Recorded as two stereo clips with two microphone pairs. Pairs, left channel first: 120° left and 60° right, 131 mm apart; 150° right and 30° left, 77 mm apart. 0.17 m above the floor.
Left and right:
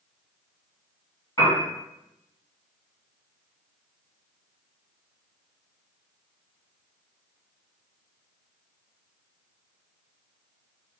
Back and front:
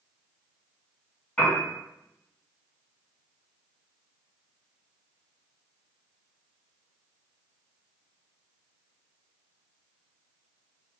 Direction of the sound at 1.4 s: 150° left.